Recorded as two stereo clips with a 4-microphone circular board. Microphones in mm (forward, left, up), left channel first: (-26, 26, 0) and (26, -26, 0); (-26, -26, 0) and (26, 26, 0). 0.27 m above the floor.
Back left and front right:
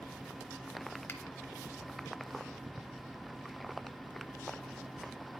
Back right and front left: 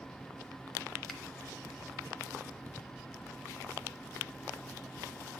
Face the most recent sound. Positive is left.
turn(degrees=140)